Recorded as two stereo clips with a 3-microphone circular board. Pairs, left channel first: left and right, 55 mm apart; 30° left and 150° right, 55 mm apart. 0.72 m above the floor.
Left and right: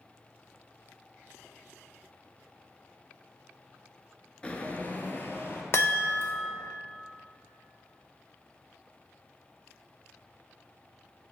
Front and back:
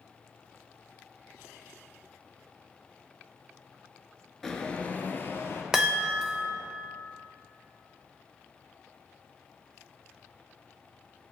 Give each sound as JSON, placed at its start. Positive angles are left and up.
{"t": 4.4, "sound": "footsteps", "azimuth_deg": 105, "distance_m": 0.7}
{"t": 5.7, "sound": "a chime", "azimuth_deg": 130, "distance_m": 0.8}